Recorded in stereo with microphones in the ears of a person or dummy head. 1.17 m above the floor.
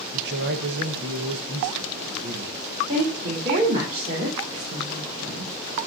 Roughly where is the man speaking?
Right.